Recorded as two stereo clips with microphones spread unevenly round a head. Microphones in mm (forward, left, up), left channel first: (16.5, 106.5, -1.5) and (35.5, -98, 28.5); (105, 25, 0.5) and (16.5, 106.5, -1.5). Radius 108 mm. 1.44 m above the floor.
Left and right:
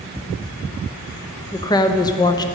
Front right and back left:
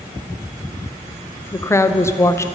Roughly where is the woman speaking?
Ahead left.